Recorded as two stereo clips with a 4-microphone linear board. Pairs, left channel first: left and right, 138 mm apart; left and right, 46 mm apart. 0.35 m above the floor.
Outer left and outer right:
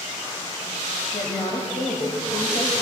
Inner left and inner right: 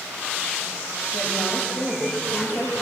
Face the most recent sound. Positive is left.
turn(degrees=40)  # may be behind; listen again after turning